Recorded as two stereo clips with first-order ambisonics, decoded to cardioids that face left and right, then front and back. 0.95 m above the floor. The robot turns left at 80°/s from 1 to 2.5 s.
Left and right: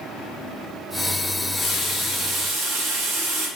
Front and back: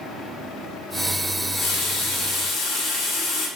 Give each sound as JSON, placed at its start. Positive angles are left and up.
{"t": 1.3, "sound": "a running tap", "azimuth_deg": 50, "distance_m": 0.8}